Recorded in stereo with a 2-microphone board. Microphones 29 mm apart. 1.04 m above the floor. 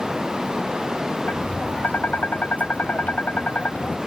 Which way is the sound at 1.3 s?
70° left (ahead or behind).